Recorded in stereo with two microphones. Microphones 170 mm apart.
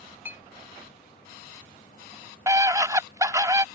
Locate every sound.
0.2 s a clink: 10° right (ahead or behind)
2.5 s a scream: 20° right (ahead or behind)